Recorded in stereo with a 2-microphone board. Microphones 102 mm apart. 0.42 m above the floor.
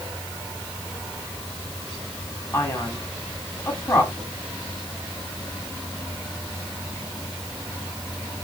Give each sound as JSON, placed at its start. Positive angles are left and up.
{"t": 2.5, "sound": "a man speaking", "side_deg": 25, "distance_m": 2.5}